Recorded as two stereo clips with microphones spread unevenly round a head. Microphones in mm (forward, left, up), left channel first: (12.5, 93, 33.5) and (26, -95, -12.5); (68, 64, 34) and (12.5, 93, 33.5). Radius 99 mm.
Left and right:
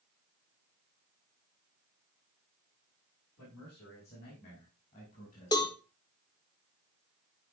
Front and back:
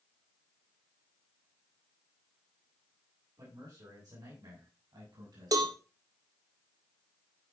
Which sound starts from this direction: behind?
A cowbell, at 5.5 s.